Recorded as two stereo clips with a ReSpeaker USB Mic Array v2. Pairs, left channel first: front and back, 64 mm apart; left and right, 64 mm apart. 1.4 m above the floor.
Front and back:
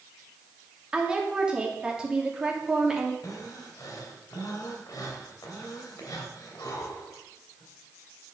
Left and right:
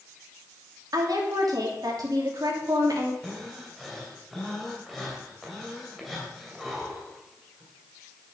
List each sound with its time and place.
0.9 s a woman speaking: 105° right, 2.5 m
3.2 s breathing: straight ahead, 2 m